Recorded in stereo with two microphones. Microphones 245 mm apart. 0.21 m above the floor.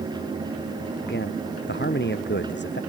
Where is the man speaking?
45° left (ahead or behind).